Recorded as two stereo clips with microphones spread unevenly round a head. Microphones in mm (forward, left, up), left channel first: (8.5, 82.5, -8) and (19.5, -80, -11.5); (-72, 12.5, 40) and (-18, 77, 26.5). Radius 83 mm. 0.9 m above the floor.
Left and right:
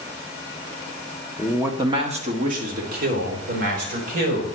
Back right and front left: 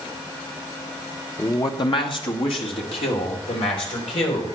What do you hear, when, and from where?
1.4 s a man speaking: straight behind, 1.0 m; by 4.6 s 115° right, 5 m